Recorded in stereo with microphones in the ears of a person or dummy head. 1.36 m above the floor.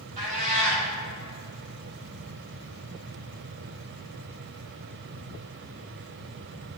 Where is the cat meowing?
45° right (ahead or behind), 3 m.